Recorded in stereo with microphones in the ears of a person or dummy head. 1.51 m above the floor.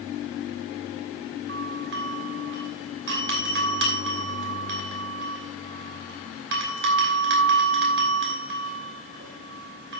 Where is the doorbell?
55° right (ahead or behind), 2.5 m.